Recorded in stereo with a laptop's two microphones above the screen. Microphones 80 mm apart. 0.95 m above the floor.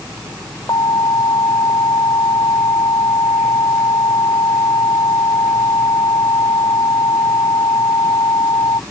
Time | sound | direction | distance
0.7 | an alarm | 65° left (ahead or behind) | ?